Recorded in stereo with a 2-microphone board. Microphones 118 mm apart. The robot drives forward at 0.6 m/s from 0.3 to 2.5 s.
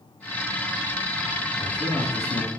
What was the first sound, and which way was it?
A man speaking, 65° left (ahead or behind).